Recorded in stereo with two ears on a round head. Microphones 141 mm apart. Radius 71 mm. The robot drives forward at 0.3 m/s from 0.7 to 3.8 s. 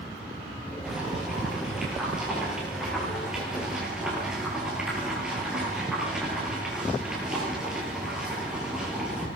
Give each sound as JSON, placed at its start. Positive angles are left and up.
{"t": 0.8, "sound": "boiling", "side_deg": -5, "distance_m": 9.0}